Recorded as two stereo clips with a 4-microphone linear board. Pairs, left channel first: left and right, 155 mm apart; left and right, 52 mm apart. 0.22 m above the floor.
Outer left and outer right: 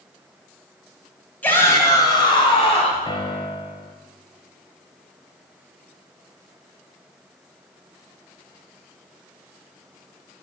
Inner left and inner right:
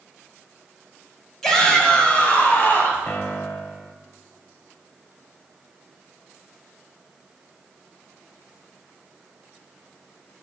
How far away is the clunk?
I don't hear a clunk.